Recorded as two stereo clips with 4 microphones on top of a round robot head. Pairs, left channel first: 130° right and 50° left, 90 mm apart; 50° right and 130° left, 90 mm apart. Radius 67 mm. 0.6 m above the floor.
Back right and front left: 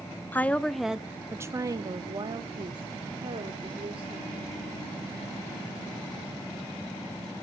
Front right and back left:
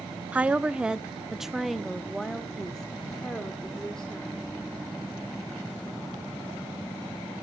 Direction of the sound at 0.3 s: 175° right.